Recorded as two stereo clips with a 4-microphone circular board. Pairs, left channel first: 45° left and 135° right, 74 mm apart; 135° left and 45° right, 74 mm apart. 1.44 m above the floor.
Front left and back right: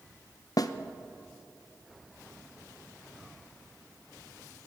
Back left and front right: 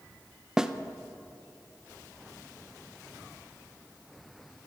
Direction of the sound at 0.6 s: 35° left.